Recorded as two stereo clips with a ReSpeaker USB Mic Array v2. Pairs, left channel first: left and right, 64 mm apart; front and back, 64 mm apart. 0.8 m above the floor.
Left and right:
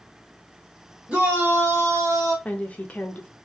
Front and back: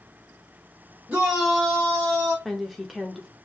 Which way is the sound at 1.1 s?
145° right.